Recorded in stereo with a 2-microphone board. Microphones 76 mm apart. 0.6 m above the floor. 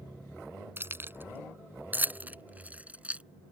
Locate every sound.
0.8 s keys jangling: 30° right (ahead or behind); by 3.2 s 15° right (ahead or behind)